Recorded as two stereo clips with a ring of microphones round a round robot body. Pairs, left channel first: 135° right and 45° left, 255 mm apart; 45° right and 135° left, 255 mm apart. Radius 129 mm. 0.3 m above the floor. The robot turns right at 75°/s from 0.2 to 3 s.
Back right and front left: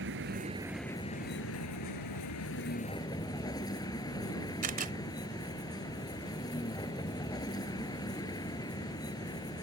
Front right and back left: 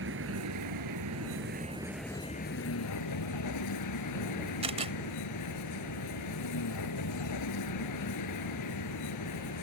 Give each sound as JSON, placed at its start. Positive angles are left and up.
{"t": 0.0, "sound": "a vehicle", "azimuth_deg": 90}
{"t": 4.6, "sound": "a camera shutter", "azimuth_deg": 80}